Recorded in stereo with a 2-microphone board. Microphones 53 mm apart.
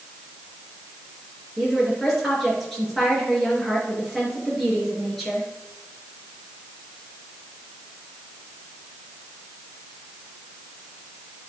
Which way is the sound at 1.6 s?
Centre (ahead or behind).